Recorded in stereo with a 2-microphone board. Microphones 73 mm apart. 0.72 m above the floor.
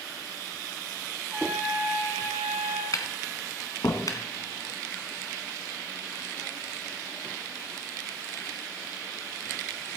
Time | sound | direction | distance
1.3 | a trumpet | 20° right (ahead or behind) | 3 m
2.9 | tapping | 55° left (ahead or behind) | 1.8 m